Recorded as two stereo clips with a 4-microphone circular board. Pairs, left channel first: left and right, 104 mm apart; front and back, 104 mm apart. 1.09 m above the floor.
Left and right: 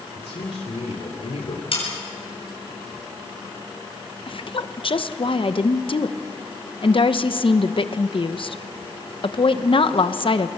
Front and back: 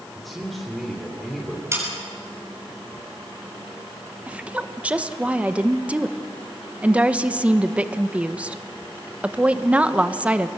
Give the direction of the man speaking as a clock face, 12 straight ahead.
9 o'clock.